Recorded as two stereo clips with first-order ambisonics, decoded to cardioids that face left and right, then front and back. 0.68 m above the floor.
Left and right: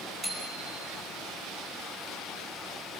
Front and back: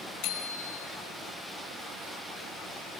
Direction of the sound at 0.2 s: 15° right.